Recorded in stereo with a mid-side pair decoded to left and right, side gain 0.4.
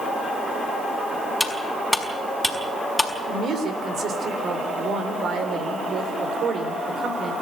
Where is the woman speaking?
65° right, 4 m.